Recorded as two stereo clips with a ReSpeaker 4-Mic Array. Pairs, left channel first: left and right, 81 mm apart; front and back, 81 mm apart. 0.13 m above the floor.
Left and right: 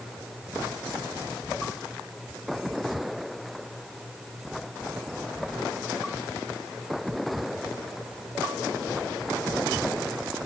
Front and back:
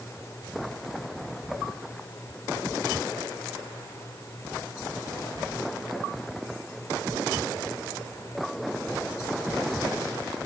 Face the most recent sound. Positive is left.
No sound to turn to.